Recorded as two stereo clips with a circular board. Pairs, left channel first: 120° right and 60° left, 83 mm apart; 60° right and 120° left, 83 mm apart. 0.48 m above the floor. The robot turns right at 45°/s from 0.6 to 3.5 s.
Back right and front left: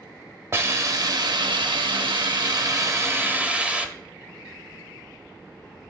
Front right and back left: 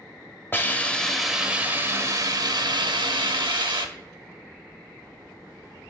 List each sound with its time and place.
0.5 s a hiss: 5° left, 0.6 m; by 3.9 s 135° left, 0.6 m